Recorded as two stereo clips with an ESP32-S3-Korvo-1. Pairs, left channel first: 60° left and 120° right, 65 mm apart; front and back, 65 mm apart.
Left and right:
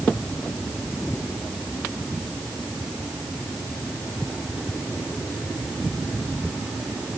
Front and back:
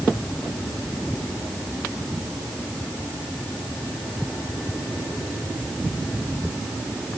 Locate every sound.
Only background noise.